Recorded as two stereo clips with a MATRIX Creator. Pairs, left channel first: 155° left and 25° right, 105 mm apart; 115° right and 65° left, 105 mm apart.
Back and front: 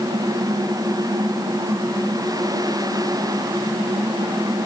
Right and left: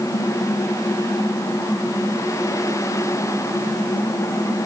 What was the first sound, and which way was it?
Only background noise.